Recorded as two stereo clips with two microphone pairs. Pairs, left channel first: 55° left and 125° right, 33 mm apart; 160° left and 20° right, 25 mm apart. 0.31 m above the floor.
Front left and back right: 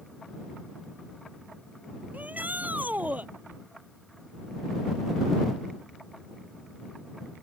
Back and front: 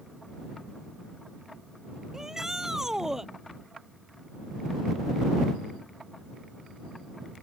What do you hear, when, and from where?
2.1 s a shout: 95° right